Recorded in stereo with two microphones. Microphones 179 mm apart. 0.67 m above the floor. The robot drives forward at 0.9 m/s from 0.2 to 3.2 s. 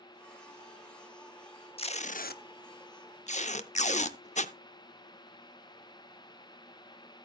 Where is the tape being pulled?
30° left (ahead or behind), 0.9 m; by 4.5 s 40° left (ahead or behind), 0.7 m.